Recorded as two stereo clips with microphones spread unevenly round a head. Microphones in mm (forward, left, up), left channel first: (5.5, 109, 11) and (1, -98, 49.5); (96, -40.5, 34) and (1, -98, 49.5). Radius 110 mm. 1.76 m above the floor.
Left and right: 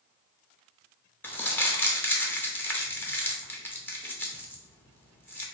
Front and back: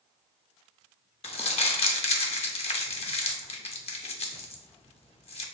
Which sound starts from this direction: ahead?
Crumpling, at 1.2 s.